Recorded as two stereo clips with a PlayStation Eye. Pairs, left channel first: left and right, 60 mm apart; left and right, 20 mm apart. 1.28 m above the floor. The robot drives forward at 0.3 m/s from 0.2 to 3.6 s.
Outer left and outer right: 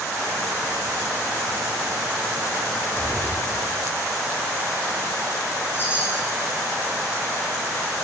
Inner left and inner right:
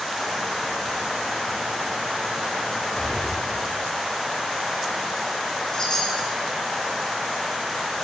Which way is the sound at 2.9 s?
65° left (ahead or behind).